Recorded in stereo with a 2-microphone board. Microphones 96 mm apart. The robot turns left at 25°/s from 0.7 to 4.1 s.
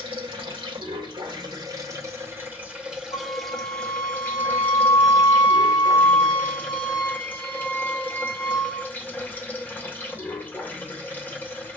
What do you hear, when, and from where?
0.0 s running water: 115° right, 1.2 m; by 11.8 s 160° left, 1.2 m
3.1 s a flute: 70° left (ahead or behind), 2.0 m